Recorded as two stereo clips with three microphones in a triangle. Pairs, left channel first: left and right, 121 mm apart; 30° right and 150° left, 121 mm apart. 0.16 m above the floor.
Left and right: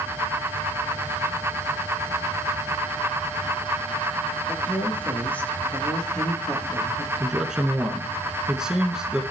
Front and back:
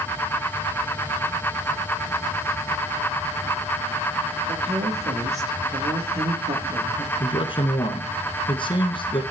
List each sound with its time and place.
4.5 s a woman speaking: 160° left, 4 m; by 7.1 s 175° right, 3.5 m
7.2 s a man speaking: 5° right, 1.5 m